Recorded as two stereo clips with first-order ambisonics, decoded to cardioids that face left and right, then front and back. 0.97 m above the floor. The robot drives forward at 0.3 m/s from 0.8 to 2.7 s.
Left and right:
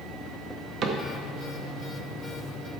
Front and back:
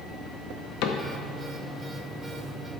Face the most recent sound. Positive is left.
turn(degrees=-85)